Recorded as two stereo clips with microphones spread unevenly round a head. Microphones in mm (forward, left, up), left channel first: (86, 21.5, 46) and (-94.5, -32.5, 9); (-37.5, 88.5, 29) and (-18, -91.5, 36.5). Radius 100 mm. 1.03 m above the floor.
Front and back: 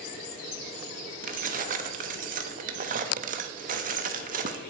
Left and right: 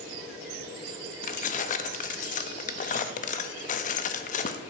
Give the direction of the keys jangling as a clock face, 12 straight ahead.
7 o'clock.